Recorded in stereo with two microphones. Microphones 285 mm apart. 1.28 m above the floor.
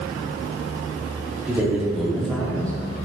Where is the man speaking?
5° right (ahead or behind), 3.5 m; by 2.7 s 5° left (ahead or behind), 4 m.